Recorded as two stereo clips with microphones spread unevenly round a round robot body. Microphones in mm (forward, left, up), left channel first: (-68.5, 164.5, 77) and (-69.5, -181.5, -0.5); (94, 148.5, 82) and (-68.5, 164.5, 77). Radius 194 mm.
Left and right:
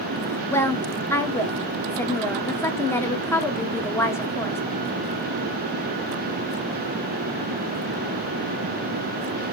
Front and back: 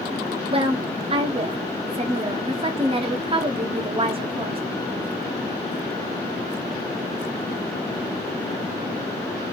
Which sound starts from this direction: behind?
A woman speaking, at 0.5 s.